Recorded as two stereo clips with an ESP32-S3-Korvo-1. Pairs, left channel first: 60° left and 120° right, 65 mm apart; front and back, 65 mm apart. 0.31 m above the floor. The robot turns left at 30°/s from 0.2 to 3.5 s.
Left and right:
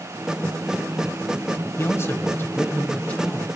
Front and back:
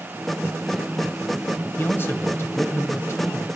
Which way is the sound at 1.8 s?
40° left.